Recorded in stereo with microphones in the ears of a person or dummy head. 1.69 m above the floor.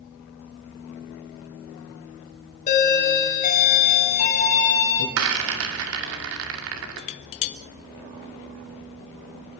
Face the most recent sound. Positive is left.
turn(degrees=30)  # may be behind; listen again after turning